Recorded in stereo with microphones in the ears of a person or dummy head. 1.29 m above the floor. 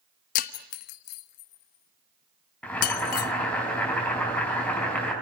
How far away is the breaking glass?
About 0.9 m.